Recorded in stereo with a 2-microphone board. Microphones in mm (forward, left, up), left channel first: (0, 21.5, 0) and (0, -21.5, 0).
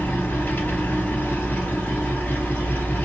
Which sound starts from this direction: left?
An engine running, at 0.0 s.